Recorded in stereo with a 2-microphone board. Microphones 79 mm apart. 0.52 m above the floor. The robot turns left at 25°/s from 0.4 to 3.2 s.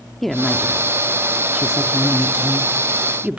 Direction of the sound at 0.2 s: Centre (ahead or behind).